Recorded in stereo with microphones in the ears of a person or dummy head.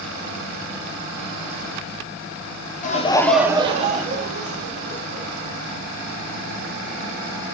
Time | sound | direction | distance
2.8 | laughter | 40° left (ahead or behind) | 0.7 m